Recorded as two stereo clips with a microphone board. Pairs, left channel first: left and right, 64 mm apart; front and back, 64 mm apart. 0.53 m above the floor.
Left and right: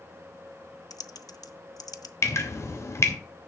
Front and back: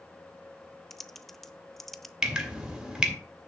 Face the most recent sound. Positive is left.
turn(degrees=105)